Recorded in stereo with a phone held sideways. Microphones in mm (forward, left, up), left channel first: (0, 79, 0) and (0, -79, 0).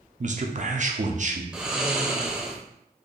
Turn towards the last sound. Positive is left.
turn(degrees=-5)  # may be behind; listen again after turning